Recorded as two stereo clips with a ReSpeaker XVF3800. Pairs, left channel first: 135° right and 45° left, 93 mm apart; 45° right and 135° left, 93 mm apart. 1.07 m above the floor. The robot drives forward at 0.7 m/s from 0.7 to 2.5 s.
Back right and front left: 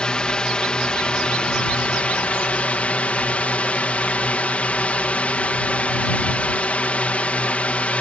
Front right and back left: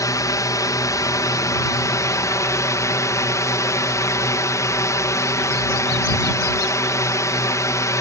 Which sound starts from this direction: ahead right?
A drone, at 0.0 s.